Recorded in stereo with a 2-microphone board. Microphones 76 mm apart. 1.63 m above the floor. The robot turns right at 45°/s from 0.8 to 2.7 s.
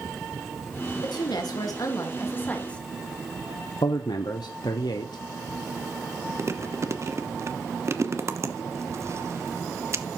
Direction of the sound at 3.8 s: 90° left.